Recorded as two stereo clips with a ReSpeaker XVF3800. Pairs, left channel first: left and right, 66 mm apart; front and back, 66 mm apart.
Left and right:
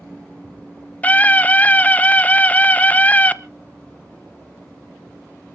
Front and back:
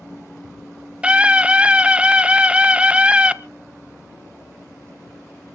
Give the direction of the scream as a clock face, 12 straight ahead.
8 o'clock.